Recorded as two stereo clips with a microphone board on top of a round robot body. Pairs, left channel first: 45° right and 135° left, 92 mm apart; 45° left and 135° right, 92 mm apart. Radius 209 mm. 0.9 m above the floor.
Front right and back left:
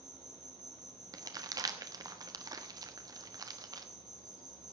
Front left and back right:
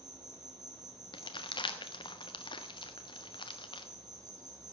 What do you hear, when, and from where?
0.0 s an insect: straight behind, 3 m
1.1 s crumpling: 85° left, 1.3 m